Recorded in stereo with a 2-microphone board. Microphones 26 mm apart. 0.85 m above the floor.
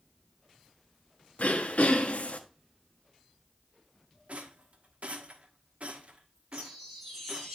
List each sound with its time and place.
1.4 s throat clearing: 65° left (ahead or behind), 1.1 m
4.3 s a rattle: 60° right (ahead or behind), 1.2 m
6.5 s a chime: 15° right (ahead or behind), 6.5 m